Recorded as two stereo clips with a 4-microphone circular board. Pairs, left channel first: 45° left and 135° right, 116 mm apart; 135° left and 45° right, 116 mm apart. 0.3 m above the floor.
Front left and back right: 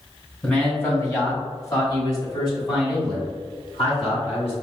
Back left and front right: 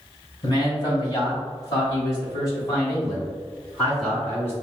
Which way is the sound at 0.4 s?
115° left.